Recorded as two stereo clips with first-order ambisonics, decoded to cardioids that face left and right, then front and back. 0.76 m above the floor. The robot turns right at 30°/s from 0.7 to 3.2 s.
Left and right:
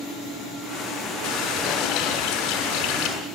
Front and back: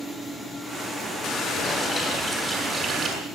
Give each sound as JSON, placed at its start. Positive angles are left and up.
{"t": 1.2, "sound": "a running tap", "azimuth_deg": 55, "distance_m": 6.0}